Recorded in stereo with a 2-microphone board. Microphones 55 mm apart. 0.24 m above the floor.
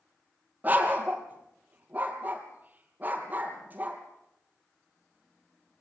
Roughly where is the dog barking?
Right.